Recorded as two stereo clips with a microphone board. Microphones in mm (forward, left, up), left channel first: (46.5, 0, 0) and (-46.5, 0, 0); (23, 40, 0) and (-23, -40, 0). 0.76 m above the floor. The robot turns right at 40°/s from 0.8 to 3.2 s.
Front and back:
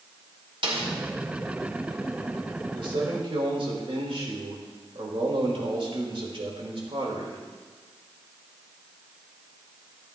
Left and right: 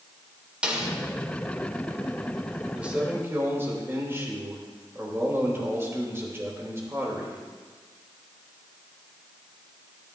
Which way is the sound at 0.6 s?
160° left.